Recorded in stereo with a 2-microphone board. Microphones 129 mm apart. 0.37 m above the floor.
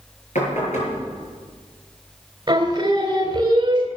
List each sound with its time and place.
0.3 s knocking: 65° left (ahead or behind), 6.5 m
2.5 s singing: 35° right (ahead or behind), 2 m